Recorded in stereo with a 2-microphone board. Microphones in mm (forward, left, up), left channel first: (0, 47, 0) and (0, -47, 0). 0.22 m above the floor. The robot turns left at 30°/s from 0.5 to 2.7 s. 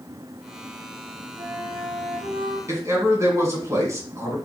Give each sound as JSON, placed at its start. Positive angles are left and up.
{"t": 1.4, "sound": "a flute", "azimuth_deg": -55, "distance_m": 2.5}
{"t": 2.7, "sound": "a man speaking", "side_deg": -35, "distance_m": 1.8}